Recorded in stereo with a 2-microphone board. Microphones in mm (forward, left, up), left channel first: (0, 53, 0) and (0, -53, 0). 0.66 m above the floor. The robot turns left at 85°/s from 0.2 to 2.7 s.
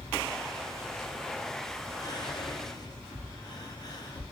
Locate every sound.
2.0 s whispering: 35° left (ahead or behind), 0.6 m; by 4.2 s 40° left (ahead or behind), 0.6 m